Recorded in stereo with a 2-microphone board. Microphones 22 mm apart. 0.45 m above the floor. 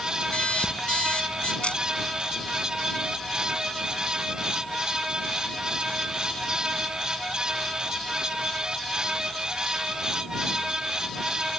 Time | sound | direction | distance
0.3 | an alarm clock | 85° left | ?
1.6 | a camera shutter | 80° left | ?